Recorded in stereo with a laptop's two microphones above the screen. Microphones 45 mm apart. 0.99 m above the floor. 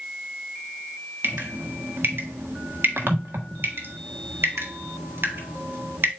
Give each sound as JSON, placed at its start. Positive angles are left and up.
{"t": 1.2, "sound": "dripping", "side_deg": -55, "distance_m": 1.5}